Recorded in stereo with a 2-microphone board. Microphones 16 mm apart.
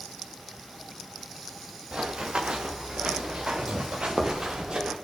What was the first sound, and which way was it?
Running footsteps, 80° right.